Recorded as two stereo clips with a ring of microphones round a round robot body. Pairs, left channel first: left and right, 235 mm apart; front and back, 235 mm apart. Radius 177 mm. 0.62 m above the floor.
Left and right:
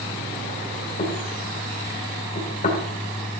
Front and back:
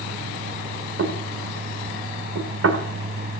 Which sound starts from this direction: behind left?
Knocking, at 1.0 s.